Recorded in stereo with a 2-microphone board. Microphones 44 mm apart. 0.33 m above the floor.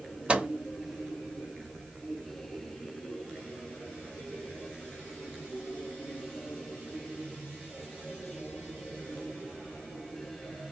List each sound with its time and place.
0.3 s a microwave: 25° right (ahead or behind), 0.9 m